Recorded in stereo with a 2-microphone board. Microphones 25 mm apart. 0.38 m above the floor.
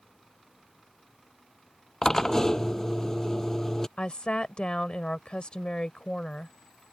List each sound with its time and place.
2.0 s a drill: 15° left (ahead or behind)
4.0 s a woman speaking: 45° left (ahead or behind)